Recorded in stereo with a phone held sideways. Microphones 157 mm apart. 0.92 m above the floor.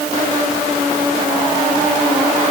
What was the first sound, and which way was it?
Only background noise.